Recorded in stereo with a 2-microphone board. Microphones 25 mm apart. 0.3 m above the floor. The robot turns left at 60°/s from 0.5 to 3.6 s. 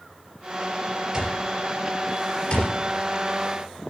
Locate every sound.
1.1 s an alarm clock: 30° right (ahead or behind), 3.5 m; by 2.7 s 65° left (ahead or behind), 3.5 m